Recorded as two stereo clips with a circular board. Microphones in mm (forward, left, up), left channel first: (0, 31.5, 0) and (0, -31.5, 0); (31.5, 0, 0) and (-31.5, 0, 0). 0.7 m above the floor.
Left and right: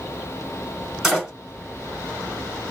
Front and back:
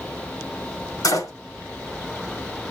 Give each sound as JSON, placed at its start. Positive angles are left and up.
{"t": 1.0, "sound": "a door slam", "azimuth_deg": -5, "distance_m": 4.5}